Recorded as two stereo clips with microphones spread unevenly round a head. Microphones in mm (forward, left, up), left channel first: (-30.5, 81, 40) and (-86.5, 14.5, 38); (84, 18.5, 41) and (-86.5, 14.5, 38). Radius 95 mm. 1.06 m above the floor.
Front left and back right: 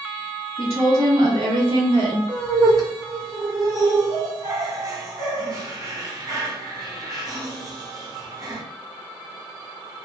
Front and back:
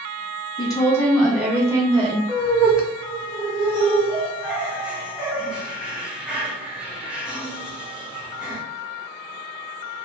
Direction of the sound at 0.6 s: 65° right.